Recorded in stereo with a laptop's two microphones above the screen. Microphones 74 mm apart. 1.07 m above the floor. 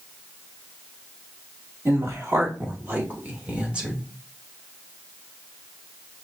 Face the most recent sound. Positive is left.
turn(degrees=-10)  # may be behind; listen again after turning